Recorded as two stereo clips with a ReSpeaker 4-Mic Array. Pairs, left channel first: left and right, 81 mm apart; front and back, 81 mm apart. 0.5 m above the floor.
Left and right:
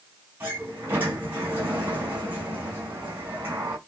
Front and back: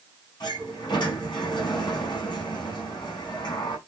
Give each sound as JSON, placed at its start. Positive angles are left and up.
{"t": 0.4, "sound": "a sliding door", "azimuth_deg": -30, "distance_m": 4.5}